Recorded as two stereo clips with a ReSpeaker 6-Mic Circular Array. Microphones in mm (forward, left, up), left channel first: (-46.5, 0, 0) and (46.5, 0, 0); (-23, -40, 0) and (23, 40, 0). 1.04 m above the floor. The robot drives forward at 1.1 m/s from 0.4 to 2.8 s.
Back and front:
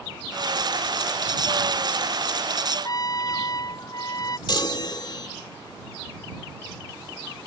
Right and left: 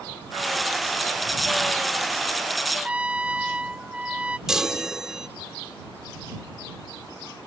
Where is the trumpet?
135° left.